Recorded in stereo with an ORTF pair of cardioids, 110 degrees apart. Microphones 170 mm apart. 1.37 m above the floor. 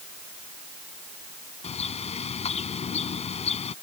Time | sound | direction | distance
1.6 | a bird | 40° left | ?